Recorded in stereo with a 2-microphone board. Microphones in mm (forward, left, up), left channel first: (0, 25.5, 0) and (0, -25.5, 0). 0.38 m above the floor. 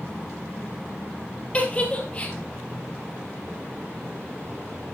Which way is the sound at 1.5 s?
25° left (ahead or behind).